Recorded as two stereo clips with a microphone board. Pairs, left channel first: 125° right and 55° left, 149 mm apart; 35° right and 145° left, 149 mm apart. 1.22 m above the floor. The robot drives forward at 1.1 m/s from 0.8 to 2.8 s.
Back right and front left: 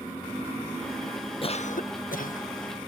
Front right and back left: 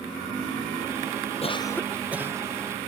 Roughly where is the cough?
Right.